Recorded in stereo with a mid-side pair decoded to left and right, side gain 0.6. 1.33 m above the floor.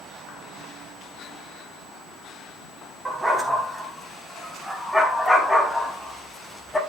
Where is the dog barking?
15° right, 4.5 m; by 6.8 s 10° left, 4.5 m.